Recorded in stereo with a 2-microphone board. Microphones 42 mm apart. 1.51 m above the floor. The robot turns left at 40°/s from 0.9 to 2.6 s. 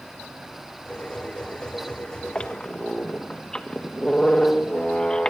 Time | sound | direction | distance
2.4 | a squeak | 25° left (ahead or behind) | 1.4 m